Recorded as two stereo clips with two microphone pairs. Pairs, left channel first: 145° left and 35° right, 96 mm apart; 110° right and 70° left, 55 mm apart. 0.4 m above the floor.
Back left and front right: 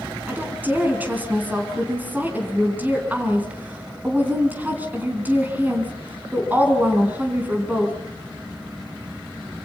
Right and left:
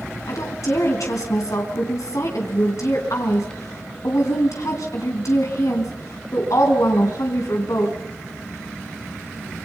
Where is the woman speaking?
105° right, 3.5 m.